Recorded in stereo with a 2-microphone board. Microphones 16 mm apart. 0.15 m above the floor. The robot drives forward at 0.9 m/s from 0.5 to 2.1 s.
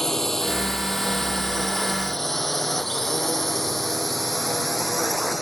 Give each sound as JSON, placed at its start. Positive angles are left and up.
{"t": 0.0, "sound": "a drone", "side_deg": 25}